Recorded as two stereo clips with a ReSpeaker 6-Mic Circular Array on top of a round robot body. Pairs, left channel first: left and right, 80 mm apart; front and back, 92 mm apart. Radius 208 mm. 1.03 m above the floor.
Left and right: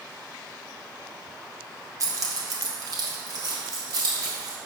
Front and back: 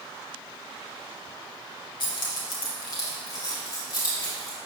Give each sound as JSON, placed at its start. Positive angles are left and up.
{"t": 2.0, "sound": "keys jangling", "azimuth_deg": -40, "distance_m": 0.7}